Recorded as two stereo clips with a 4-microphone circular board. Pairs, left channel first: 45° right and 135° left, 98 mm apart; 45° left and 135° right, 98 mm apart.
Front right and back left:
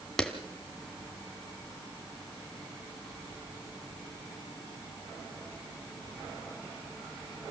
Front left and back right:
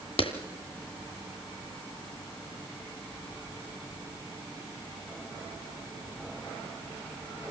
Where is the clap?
40° left, 2.5 m.